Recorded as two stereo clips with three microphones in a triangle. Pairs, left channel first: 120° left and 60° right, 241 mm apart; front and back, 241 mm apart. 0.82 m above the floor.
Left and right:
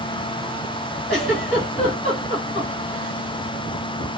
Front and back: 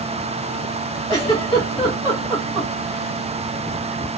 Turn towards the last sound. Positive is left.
turn(degrees=70)